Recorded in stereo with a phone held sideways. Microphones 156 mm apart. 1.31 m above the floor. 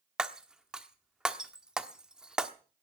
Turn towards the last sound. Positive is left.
turn(degrees=-5)  # may be behind; listen again after turning